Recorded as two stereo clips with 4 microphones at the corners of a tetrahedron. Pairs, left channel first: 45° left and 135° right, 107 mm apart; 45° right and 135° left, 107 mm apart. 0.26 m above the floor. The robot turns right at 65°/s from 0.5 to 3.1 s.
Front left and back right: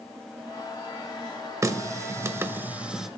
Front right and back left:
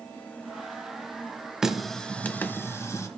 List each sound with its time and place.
1.6 s a running tap: 145° right, 0.8 m; by 3.1 s 50° right, 0.8 m